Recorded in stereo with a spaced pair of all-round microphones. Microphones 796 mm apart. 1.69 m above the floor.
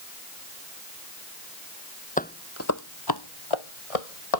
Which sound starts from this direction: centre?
Footsteps, at 2.2 s.